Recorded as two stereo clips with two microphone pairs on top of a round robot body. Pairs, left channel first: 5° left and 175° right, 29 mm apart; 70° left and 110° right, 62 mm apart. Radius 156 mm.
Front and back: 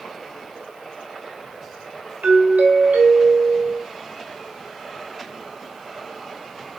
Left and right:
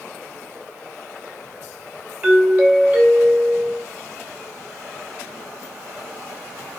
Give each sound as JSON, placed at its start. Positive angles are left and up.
{"t": 2.2, "sound": "a doorbell", "azimuth_deg": -155, "distance_m": 2.5}